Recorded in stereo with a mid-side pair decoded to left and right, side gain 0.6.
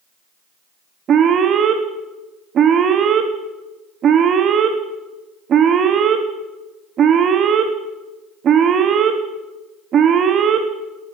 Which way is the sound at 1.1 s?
45° right.